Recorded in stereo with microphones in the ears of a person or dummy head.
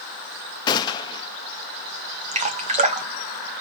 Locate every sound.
0.7 s a gunshot: 25° left (ahead or behind), 0.7 m
2.3 s dripping: 30° right (ahead or behind), 1.0 m